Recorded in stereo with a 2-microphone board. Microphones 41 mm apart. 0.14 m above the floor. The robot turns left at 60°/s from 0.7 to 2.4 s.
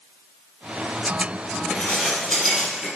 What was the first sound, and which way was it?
Dishes clattering, 50° left.